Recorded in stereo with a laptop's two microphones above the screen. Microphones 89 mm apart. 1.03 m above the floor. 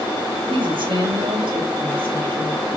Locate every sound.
0.5 s a woman speaking: 60° right (ahead or behind), 1.7 m; by 2.7 s 70° right (ahead or behind), 3.5 m